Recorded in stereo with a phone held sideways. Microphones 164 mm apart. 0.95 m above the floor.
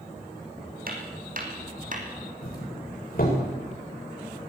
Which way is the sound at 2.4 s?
65° left (ahead or behind).